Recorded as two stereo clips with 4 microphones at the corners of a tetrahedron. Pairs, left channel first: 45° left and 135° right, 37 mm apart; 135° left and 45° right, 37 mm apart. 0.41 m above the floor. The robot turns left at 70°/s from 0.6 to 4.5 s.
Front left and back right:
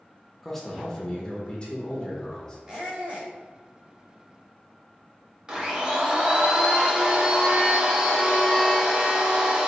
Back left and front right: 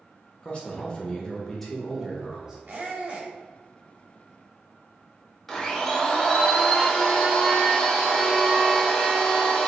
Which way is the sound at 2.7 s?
60° right.